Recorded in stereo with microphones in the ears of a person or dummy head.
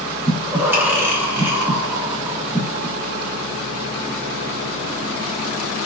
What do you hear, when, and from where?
0.3 s breathing: 5° right (ahead or behind), 0.5 m